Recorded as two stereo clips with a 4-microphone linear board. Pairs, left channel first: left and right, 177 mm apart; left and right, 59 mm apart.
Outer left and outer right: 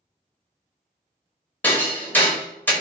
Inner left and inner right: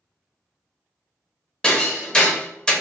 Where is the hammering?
10° left (ahead or behind), 1.0 m.